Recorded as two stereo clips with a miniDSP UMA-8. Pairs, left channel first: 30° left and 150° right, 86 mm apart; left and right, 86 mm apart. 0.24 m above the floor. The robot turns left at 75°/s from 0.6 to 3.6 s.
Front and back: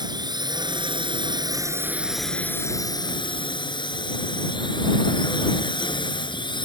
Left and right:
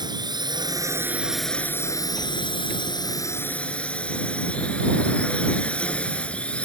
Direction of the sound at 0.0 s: 120° right.